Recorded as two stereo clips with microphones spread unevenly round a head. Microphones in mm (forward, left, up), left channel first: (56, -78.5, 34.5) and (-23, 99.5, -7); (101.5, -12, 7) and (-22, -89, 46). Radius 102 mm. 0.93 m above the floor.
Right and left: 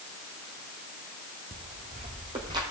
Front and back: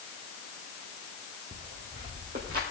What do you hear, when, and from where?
1.5 s footsteps: 170° left, 2 m; by 2.6 s 170° right, 2.5 m